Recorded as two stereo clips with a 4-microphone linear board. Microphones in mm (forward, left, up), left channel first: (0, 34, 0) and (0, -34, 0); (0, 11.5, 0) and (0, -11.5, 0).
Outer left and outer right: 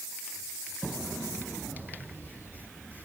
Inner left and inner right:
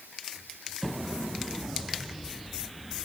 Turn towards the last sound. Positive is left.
No sound to turn to.